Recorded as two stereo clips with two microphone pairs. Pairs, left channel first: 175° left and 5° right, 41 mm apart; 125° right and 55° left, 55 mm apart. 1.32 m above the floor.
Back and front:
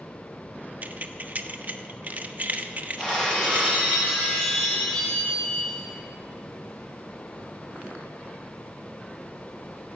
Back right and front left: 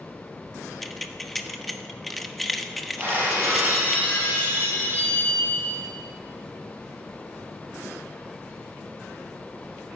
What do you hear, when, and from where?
0.8 s keys jangling: 35° right, 0.9 m
3.0 s breaking glass: 105° left, 7 m